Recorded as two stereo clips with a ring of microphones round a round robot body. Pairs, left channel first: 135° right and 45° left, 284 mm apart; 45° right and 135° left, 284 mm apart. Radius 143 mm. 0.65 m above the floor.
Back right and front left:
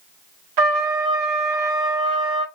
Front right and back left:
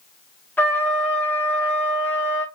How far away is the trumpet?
About 0.6 m.